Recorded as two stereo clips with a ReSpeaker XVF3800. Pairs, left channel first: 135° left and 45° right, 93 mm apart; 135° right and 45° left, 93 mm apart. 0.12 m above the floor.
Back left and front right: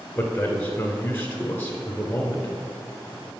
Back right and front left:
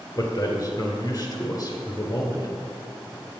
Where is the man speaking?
160° right, 1.5 m.